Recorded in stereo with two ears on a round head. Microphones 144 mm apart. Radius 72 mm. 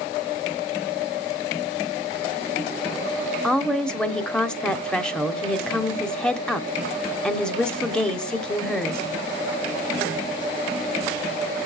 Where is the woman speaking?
5° left (ahead or behind), 0.9 m.